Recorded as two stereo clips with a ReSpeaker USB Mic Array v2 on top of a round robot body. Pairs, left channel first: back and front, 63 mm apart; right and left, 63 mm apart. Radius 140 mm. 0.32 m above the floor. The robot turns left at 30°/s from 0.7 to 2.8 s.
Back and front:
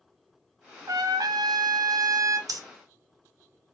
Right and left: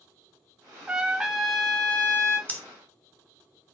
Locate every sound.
0.9 s a trumpet: 20° left, 0.5 m; by 2.4 s 30° right, 0.5 m
2.5 s breathing: 20° right, 0.7 m; by 2.6 s 25° right, 0.7 m